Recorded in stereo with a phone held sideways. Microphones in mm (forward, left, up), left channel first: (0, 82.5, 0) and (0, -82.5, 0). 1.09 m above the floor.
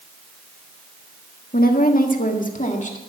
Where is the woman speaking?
65° left (ahead or behind), 1.4 m; by 3.0 s 50° left (ahead or behind), 2.0 m.